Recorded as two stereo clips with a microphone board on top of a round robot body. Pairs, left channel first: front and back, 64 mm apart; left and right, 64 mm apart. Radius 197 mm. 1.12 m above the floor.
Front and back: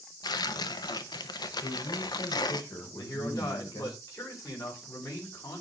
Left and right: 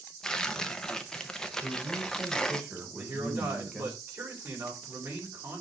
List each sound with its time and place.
0.2 s tearing paper: 10° left, 0.8 m
1.6 s a man speaking: 5° right, 4.5 m
3.0 s a man speaking: 35° right, 6.5 m